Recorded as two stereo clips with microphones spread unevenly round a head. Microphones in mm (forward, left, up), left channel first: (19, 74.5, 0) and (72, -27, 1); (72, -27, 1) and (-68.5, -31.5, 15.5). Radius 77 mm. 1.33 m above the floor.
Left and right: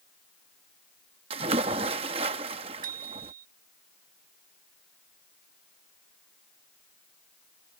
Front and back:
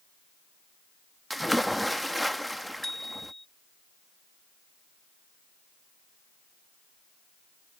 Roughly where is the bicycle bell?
Right.